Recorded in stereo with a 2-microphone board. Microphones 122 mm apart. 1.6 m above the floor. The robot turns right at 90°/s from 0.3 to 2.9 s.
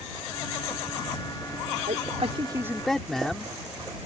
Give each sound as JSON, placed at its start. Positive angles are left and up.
{"t": 1.9, "sound": "a man speaking", "azimuth_deg": -90}